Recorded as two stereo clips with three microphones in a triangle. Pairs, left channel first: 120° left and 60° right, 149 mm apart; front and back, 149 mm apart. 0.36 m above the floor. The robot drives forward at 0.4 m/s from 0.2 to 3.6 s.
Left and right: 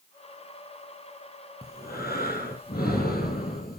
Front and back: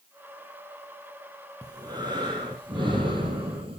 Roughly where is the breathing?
Behind left.